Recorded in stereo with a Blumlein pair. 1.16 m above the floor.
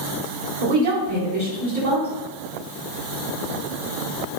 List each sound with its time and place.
0.6 s a woman speaking: 65° right, 1.0 m